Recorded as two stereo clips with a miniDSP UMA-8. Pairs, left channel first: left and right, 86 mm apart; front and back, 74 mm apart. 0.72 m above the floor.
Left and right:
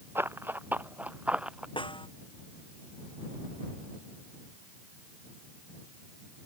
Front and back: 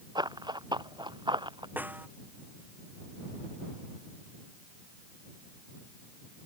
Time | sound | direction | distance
0.1 | running footsteps | 155° right | ?
1.8 | a snare drum | 110° left | ?